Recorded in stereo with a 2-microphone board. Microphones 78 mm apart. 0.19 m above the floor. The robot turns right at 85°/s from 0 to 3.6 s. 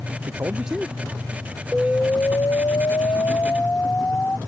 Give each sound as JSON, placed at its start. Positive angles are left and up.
{"t": 0.3, "sound": "a man speaking", "azimuth_deg": -45}
{"t": 1.7, "sound": "an explosion", "azimuth_deg": 0}